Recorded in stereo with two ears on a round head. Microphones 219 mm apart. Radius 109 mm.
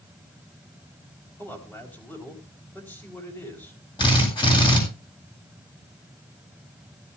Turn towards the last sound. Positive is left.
turn(degrees=20)  # may be behind; listen again after turning